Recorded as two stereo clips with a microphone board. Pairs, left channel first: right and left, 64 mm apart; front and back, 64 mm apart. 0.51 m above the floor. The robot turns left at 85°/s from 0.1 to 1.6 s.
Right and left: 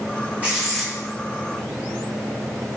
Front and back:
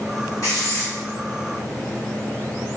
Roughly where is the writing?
Ahead left.